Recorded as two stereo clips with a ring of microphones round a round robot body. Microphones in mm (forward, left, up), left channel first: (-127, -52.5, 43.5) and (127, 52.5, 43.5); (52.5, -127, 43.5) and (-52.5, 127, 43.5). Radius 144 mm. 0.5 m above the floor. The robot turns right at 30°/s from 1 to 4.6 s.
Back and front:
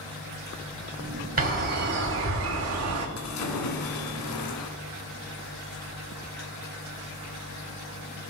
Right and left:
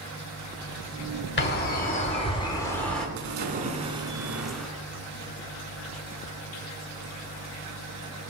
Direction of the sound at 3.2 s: 160° left.